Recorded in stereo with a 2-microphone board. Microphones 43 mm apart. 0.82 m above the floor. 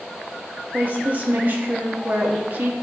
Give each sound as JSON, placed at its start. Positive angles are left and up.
{"t": 0.7, "sound": "a woman speaking", "side_deg": -40, "distance_m": 1.0}